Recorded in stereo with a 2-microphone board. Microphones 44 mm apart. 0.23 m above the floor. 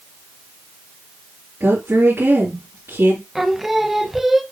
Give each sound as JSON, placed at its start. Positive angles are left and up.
{"t": 1.6, "sound": "a woman speaking", "side_deg": -70, "distance_m": 3.0}
{"t": 3.4, "sound": "singing", "side_deg": -5, "distance_m": 0.8}